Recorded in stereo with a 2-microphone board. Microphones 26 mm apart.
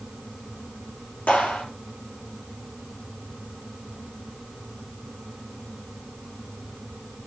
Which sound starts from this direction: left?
A clap, at 1.3 s.